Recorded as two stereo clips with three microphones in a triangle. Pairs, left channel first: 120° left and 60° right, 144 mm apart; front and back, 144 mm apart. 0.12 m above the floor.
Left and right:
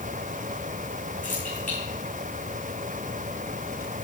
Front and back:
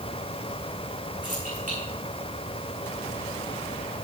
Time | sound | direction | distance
1.2 | keys jangling | 150° left | 6.5 m